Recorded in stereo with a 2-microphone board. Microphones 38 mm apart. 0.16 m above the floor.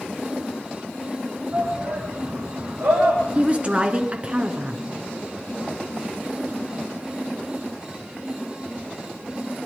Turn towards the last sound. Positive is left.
turn(degrees=-30)  # may be behind; listen again after turning